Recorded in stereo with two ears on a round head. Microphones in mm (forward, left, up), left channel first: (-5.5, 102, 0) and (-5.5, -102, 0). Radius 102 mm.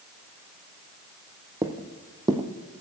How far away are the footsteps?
About 1.2 m.